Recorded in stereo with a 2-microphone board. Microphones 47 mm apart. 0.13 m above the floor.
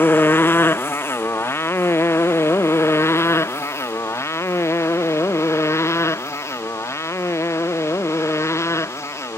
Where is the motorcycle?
50° left (ahead or behind); by 9.4 s 85° left.